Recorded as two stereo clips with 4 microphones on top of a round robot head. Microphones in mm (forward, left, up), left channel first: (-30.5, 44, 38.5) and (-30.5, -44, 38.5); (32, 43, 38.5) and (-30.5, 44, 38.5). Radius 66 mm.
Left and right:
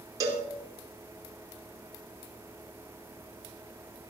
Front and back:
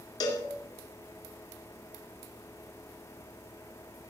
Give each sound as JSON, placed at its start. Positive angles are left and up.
{"t": 0.2, "sound": "a cowbell", "azimuth_deg": -30, "distance_m": 2.5}